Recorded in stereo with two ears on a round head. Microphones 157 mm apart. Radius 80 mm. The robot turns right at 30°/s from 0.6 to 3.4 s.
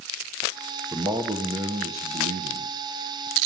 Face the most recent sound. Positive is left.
turn(degrees=-85)